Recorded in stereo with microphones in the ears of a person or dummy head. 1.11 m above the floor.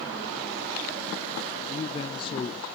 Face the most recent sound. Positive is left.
turn(degrees=25)  # may be behind; listen again after turning